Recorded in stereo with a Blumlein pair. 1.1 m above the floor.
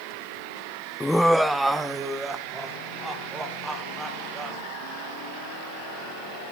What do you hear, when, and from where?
1.0 s laughter: 5° left, 0.5 m; by 4.6 s 15° right, 5 m